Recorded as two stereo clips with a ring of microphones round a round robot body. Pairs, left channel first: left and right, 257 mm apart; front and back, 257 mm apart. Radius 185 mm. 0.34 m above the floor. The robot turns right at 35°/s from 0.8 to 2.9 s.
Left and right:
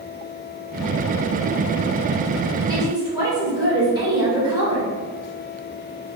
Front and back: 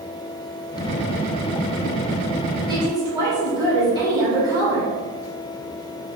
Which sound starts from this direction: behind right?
A woman speaking, at 2.7 s.